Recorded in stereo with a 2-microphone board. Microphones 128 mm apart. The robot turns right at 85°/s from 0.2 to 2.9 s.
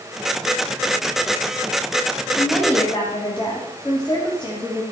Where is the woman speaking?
10° right, 2.5 m; by 4.8 s 40° left, 2.5 m.